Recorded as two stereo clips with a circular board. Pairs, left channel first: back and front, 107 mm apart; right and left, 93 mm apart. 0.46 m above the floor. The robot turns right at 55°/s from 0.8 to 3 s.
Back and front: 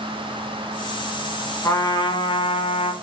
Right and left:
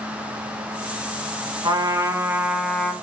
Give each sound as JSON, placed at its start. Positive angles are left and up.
{"t": 1.6, "sound": "a trumpet", "azimuth_deg": 120, "distance_m": 0.5}